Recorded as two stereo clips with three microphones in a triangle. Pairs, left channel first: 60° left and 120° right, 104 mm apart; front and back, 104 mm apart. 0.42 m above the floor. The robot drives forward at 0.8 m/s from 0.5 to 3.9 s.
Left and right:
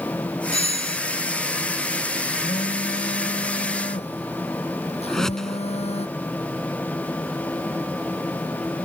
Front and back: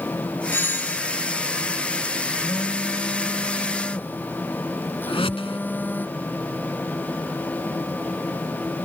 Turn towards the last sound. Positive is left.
turn(degrees=-25)